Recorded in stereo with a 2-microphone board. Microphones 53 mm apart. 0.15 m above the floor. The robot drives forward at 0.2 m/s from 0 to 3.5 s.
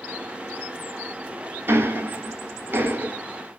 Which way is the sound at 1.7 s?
45° right (ahead or behind).